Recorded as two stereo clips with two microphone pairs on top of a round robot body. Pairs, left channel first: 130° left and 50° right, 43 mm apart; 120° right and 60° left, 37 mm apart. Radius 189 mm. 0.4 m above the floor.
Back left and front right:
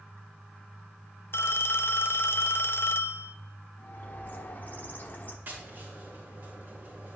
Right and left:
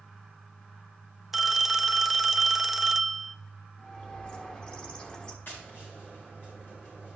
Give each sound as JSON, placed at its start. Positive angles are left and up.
{"t": 1.3, "sound": "a phone ringing", "azimuth_deg": 130, "distance_m": 0.6}
{"t": 3.8, "sound": "a bird", "azimuth_deg": 175, "distance_m": 1.5}
{"t": 5.5, "sound": "tapping", "azimuth_deg": -90, "distance_m": 4.0}